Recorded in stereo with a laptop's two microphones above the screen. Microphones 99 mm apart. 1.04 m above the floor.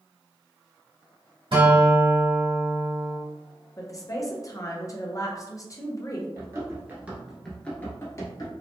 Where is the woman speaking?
35° left (ahead or behind), 0.5 m.